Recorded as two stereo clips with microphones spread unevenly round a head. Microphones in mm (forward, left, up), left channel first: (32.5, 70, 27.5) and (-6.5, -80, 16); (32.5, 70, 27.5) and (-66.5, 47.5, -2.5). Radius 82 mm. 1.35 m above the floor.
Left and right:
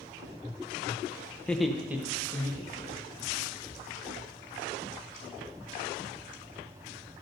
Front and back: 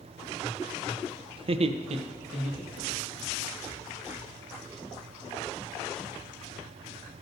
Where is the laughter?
150° left, 0.6 m; by 3.2 s 175° right, 2.5 m.